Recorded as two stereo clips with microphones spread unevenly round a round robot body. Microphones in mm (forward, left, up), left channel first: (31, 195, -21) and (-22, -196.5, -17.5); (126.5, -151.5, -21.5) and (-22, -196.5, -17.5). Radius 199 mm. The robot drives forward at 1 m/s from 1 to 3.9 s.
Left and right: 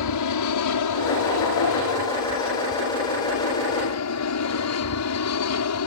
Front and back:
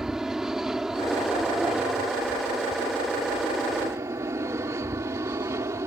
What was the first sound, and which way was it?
An aircraft, 110° left.